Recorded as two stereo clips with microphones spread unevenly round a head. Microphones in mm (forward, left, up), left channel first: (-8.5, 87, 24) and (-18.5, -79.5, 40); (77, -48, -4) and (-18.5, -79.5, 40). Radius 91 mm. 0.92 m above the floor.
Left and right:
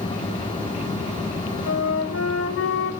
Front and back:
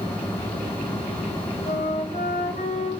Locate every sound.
1.7 s a flute: 80° left, 1.1 m